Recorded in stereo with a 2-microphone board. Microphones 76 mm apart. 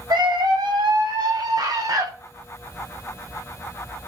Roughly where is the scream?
Right.